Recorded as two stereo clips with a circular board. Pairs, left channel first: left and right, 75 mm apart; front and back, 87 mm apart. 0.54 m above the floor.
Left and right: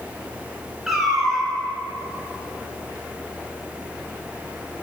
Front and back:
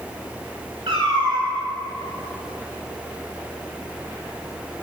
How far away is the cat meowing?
About 1.5 m.